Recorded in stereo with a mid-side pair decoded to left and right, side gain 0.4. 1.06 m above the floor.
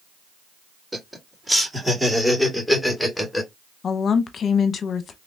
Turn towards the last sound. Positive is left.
turn(degrees=60)